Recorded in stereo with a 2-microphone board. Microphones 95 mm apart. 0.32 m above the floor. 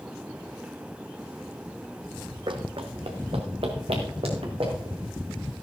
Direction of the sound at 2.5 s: 60° right (ahead or behind).